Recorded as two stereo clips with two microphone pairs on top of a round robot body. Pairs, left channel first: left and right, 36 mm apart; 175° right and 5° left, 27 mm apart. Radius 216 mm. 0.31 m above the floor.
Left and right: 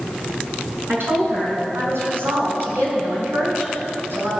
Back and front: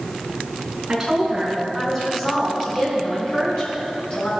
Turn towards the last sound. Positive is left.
turn(degrees=-125)